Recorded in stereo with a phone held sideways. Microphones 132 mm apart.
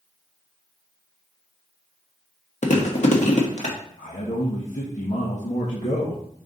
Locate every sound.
2.6 s chewing: 60° left (ahead or behind), 1.4 m
4.0 s a man speaking: 70° left (ahead or behind), 1.6 m